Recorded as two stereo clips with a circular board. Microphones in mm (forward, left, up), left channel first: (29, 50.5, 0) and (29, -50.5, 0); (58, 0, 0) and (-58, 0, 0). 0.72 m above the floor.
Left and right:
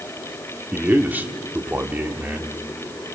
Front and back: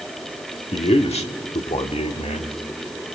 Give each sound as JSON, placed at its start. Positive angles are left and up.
{"t": 0.7, "sound": "a man speaking", "azimuth_deg": -20, "distance_m": 1.4}